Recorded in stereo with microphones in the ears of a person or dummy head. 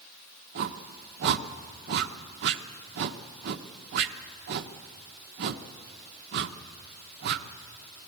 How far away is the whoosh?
About 1.1 m.